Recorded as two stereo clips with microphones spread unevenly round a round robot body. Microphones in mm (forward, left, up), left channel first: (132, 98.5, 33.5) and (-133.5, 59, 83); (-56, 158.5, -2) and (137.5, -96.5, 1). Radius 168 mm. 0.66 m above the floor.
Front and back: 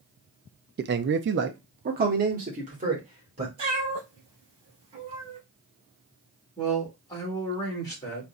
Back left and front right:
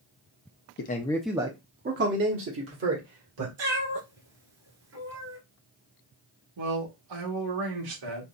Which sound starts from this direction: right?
A cat meowing, at 3.6 s.